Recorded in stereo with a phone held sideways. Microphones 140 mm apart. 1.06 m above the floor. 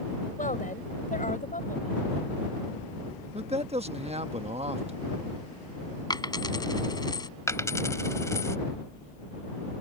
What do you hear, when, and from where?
0.4 s a woman speaking: 70° left (ahead or behind)
3.3 s a man speaking: 50° right (ahead or behind)
6.1 s a dropped coin: 30° left (ahead or behind)
7.5 s a dropped coin: 20° left (ahead or behind)